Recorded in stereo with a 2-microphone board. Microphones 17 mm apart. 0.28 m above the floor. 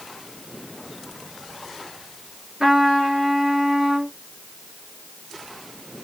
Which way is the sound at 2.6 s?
30° right (ahead or behind).